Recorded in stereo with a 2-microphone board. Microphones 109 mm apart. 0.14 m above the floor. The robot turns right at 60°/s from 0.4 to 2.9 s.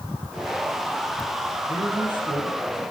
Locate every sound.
1.6 s a man speaking: 15° left, 8 m; by 2.6 s 70° left, 8 m